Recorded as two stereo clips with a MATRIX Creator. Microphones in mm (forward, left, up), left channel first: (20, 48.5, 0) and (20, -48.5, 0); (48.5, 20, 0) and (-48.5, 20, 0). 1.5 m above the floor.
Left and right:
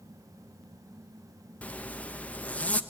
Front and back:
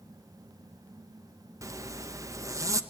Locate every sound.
1.6 s a zipper: 155° left, 0.7 m